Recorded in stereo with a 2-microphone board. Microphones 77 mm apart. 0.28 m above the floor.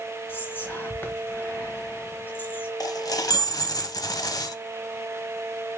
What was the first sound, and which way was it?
Whispering, 30° left (ahead or behind).